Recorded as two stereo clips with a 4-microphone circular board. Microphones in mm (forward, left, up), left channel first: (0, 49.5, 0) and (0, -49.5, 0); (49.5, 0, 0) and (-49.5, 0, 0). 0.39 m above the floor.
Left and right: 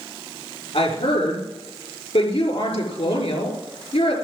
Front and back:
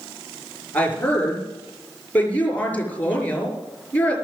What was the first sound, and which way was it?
A woman speaking, 75° left.